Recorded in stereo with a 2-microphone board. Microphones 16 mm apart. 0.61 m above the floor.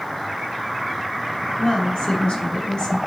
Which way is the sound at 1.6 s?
80° left.